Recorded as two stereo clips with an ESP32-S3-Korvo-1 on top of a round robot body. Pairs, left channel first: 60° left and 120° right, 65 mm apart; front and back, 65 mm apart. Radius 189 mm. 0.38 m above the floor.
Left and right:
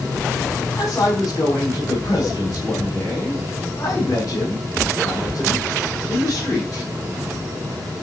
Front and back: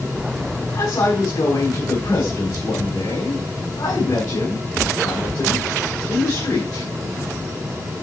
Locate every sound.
0.7 s a man speaking: 25° left, 4.5 m